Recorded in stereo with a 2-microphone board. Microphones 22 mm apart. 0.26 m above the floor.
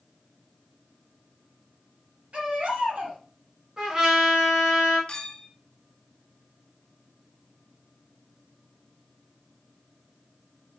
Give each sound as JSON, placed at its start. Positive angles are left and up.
{"t": 2.3, "sound": "a baby crying", "side_deg": -65, "distance_m": 2.5}
{"t": 3.8, "sound": "a trumpet", "side_deg": -20, "distance_m": 2.0}
{"t": 5.1, "sound": "a clink", "side_deg": 50, "distance_m": 1.4}